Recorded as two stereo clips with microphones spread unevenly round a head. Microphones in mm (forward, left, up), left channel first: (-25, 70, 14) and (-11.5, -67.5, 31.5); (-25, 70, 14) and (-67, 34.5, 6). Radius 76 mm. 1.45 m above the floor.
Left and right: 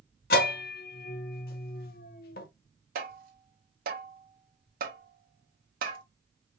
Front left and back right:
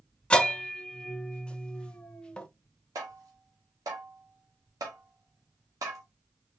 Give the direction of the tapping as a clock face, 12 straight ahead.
3 o'clock.